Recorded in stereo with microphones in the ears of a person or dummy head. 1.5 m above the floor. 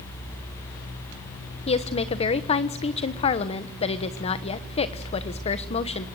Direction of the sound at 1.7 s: 30° left (ahead or behind).